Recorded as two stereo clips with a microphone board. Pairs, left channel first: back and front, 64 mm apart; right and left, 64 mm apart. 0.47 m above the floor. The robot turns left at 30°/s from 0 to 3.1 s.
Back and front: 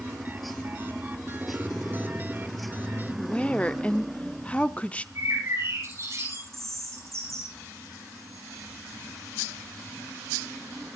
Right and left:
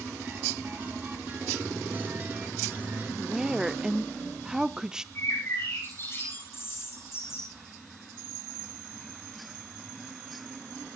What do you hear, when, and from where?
3.2 s a woman speaking: 150° left, 0.7 m
5.2 s a bird: 40° right, 10 m